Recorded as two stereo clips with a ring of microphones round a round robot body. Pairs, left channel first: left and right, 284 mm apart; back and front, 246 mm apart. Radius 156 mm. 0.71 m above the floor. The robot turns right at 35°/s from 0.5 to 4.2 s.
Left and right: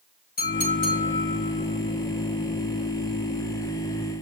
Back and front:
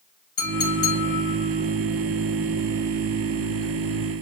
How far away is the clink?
About 7 m.